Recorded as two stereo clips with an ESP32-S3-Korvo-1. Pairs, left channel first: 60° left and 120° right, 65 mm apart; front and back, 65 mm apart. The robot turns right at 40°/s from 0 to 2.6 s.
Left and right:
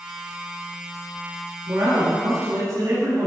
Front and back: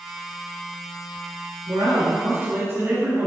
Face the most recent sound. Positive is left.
turn(degrees=-135)